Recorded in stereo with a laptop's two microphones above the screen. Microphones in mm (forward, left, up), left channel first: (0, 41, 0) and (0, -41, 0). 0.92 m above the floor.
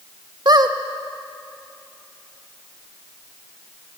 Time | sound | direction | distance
0.5 | a squeak | 65° right (ahead or behind) | 1.4 m